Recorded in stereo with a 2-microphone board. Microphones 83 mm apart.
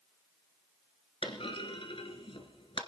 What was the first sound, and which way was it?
A clunk, 85° left.